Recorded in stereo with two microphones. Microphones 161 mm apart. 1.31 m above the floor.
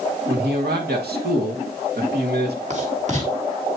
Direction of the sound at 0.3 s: 85° right.